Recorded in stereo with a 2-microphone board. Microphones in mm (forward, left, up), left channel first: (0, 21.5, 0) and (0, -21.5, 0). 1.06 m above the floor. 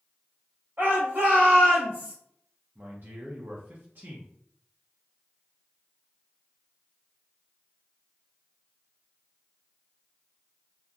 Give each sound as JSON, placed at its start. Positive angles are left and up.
{"t": 0.8, "sound": "a shout", "side_deg": -60, "distance_m": 1.7}
{"t": 2.8, "sound": "a man speaking", "side_deg": -50, "distance_m": 0.6}